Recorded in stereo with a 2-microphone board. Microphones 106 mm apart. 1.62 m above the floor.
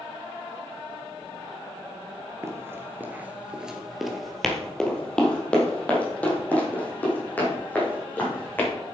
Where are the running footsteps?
25° right (ahead or behind), 1.8 m; by 8.7 s 15° left (ahead or behind), 6.5 m.